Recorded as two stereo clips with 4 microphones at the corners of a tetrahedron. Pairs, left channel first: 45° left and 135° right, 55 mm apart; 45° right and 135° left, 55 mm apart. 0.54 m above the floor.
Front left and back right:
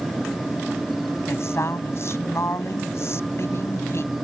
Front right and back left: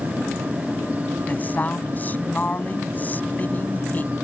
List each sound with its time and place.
1.3 s a woman speaking: 10° left